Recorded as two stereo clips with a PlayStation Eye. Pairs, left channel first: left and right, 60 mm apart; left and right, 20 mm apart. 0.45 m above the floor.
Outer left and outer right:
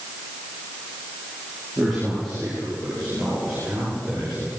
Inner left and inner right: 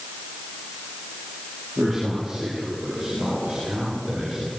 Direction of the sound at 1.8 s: 5° left (ahead or behind).